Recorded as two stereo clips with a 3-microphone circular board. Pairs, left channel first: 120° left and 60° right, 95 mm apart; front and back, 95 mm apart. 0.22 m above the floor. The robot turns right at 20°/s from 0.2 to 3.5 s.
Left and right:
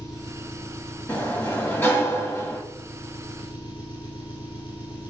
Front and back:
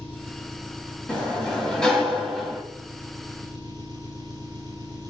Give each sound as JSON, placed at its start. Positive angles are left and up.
{"t": 0.0, "sound": "an engine running", "azimuth_deg": 65, "distance_m": 3.0}
{"t": 1.1, "sound": "a sliding door", "azimuth_deg": 60, "distance_m": 1.8}